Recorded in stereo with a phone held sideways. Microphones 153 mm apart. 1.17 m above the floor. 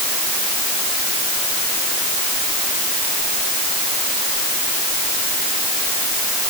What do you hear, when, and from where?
Only background noise.